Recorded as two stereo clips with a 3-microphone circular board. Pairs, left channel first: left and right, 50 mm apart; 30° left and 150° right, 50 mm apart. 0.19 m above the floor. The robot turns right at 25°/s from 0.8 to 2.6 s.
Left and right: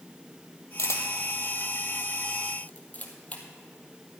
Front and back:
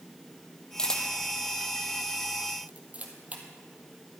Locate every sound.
0.8 s a camera shutter: 105° left, 1.8 m; by 3.4 s 150° left, 1.8 m